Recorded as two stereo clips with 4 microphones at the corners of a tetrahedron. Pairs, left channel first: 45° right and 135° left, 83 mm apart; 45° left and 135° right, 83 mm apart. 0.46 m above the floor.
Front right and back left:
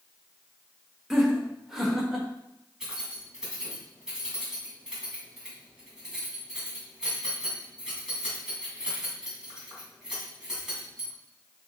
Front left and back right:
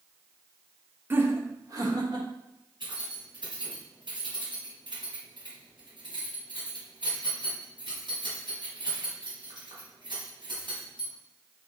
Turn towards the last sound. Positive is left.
turn(degrees=-140)